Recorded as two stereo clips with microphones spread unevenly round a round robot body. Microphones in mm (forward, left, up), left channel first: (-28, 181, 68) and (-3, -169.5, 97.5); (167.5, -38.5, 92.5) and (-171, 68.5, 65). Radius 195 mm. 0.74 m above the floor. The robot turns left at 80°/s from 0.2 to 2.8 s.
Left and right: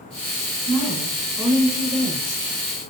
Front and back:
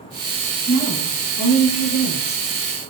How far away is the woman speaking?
About 3.5 m.